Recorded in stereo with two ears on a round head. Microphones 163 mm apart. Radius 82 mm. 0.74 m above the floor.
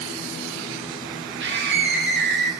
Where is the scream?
70° right (ahead or behind), 3 m; by 2.5 s 65° right (ahead or behind), 4.5 m.